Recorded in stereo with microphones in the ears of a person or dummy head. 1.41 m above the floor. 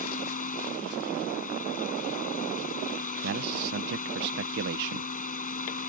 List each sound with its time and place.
0.0 s a fan: 45° left (ahead or behind)
3.2 s a man speaking: 65° right (ahead or behind)